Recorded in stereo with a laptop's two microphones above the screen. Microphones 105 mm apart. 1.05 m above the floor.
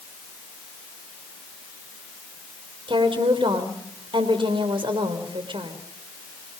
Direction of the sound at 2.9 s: 55° right (ahead or behind).